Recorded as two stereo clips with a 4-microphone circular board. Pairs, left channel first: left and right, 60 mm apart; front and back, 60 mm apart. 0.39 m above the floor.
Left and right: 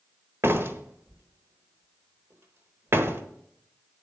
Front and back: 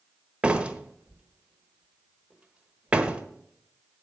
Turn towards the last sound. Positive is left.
turn(degrees=-115)